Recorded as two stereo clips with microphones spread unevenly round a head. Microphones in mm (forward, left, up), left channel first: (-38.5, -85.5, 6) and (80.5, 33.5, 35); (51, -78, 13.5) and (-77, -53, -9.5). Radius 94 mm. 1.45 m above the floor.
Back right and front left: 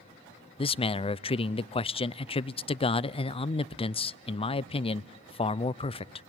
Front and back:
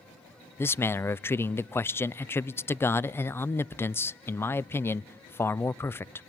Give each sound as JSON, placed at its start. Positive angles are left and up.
{"t": 0.6, "sound": "a man speaking", "azimuth_deg": -90, "distance_m": 0.5}